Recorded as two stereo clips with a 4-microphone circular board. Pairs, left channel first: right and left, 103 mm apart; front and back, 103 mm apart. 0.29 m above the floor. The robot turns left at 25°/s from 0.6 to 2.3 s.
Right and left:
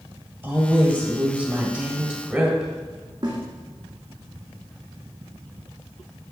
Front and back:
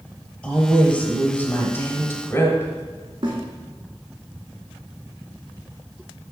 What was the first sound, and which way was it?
A woman speaking, 55° left.